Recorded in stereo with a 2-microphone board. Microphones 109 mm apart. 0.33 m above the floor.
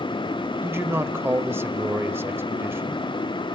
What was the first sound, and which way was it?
A man speaking, 20° right (ahead or behind).